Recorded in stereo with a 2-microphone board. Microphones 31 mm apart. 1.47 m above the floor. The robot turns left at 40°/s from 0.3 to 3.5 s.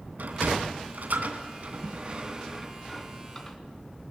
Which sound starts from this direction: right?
A sliding door, at 0.2 s.